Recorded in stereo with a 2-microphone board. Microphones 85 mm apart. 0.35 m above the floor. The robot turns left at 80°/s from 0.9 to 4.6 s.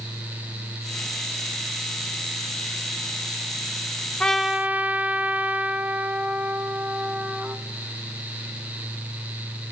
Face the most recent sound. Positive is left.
turn(degrees=-20)